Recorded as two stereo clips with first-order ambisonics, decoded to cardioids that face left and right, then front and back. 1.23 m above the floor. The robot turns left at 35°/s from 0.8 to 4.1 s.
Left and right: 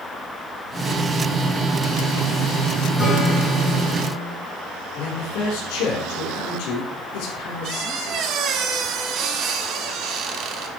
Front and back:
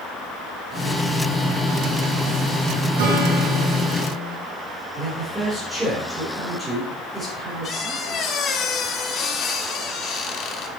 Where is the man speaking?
100° left, 4 m.